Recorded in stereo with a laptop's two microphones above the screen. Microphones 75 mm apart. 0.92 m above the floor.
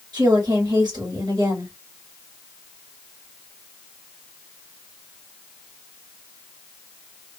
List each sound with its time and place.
0.1 s a woman speaking: 65° right (ahead or behind), 2 m